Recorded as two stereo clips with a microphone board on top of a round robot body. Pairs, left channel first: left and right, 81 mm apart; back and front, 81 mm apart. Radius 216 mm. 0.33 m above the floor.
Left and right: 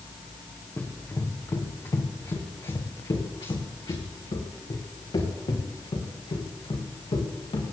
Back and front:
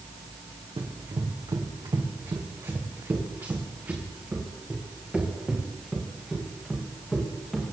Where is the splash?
I don't hear a splash.